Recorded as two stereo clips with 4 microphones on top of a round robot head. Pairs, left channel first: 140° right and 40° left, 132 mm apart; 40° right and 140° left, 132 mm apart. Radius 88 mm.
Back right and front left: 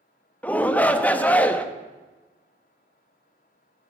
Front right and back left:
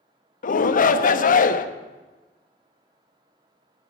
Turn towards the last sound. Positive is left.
turn(degrees=-60)